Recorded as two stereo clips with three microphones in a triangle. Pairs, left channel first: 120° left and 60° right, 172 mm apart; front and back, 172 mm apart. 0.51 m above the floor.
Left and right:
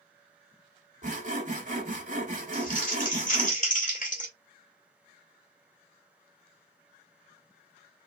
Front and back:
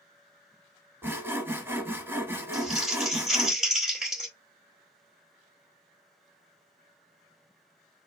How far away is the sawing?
About 1.0 m.